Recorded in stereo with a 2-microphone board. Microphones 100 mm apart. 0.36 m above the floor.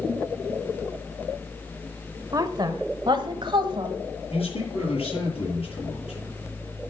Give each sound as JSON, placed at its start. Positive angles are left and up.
{"t": 2.3, "sound": "a woman speaking", "side_deg": -40, "distance_m": 1.1}
{"t": 4.3, "sound": "a man speaking", "side_deg": 75, "distance_m": 8.5}